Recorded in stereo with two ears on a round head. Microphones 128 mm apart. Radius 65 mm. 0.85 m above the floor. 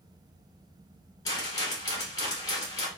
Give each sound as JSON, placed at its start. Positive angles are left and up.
{"t": 1.2, "sound": "a rattle", "side_deg": 25, "distance_m": 1.9}